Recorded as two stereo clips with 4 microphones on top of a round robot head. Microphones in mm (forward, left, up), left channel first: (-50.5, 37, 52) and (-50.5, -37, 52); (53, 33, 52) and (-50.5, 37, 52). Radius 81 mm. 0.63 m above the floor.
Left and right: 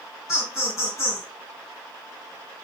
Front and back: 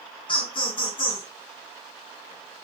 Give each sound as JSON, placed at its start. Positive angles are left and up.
{"t": 0.3, "sound": "laughter", "azimuth_deg": 30, "distance_m": 3.5}